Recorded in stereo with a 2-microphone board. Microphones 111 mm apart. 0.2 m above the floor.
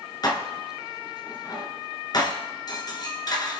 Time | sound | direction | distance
0.2 | dishes clattering | 40° left (ahead or behind) | 1.8 m